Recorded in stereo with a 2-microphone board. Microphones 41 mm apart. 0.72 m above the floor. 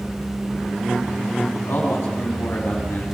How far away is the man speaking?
About 6 m.